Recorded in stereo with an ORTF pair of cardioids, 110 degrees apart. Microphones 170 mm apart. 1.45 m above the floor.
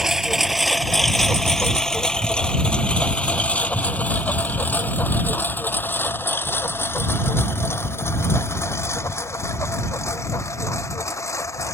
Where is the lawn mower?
5° right; by 11.8 s 15° left.